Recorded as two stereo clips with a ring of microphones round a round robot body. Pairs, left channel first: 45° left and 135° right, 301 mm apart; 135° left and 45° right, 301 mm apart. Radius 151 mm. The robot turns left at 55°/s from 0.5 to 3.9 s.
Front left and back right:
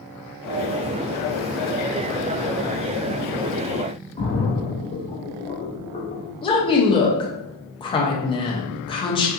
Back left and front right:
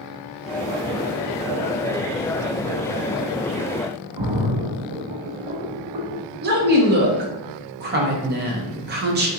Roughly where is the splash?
Ahead right.